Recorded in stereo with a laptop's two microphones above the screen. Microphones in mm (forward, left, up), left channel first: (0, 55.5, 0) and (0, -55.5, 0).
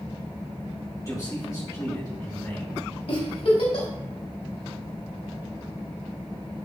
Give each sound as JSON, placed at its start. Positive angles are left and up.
{"t": 1.0, "sound": "a man speaking", "side_deg": 35, "distance_m": 3.5}
{"t": 3.1, "sound": "a giggle", "side_deg": 70, "distance_m": 2.5}